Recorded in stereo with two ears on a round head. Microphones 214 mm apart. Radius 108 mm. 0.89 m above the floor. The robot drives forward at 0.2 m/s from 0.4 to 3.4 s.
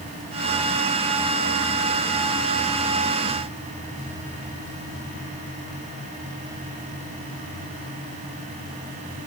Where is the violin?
No violin in this recording.